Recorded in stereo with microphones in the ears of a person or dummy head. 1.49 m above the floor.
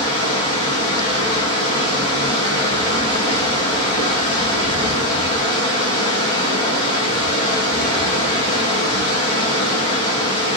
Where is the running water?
25° left (ahead or behind), 2.0 m.